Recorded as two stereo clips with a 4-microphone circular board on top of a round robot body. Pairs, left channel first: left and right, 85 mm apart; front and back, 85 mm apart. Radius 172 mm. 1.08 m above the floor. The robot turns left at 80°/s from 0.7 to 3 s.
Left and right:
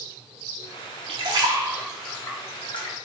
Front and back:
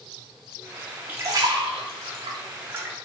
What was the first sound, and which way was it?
A splash, 110° right.